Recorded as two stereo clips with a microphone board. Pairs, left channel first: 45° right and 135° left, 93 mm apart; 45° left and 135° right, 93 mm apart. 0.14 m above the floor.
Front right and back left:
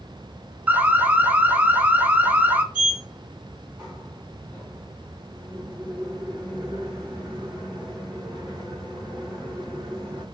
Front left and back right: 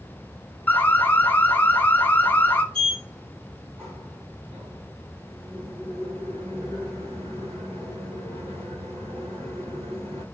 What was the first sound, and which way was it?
An alarm, 85° left.